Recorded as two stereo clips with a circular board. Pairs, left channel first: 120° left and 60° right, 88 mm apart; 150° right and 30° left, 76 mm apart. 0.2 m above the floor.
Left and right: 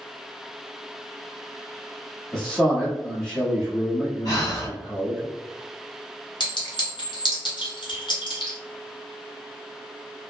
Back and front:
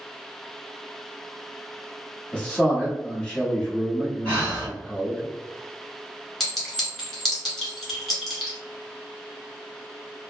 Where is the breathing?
155° left, 1.9 m.